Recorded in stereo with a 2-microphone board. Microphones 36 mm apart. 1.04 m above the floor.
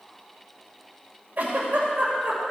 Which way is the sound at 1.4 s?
45° right (ahead or behind).